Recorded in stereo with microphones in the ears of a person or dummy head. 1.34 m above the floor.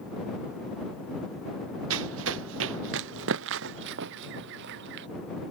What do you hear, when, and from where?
1.9 s running footsteps: 80° right; by 5.1 s 70° right (ahead or behind)